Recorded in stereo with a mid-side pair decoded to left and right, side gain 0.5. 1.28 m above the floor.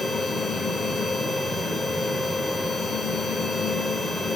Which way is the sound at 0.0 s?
25° left.